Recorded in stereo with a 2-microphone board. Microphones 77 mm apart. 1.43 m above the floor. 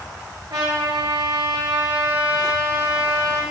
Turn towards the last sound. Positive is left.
turn(degrees=-70)  # may be behind; listen again after turning